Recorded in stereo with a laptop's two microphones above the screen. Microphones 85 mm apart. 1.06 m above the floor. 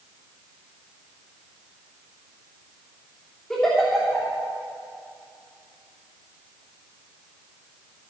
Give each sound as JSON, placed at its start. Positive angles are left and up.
{"t": 3.5, "sound": "a giggle", "side_deg": 10, "distance_m": 3.0}